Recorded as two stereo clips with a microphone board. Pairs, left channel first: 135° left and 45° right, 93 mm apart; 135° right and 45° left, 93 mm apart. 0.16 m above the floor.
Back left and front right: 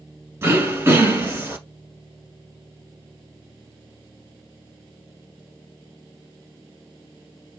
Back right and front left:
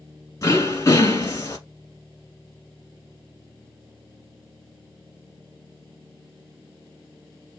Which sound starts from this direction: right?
Throat clearing, at 0.4 s.